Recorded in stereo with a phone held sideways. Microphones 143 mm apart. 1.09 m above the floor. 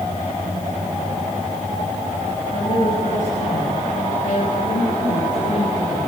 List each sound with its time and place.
2.5 s a woman speaking: 65° left (ahead or behind), 6 m; by 6.1 s 70° left (ahead or behind), 9 m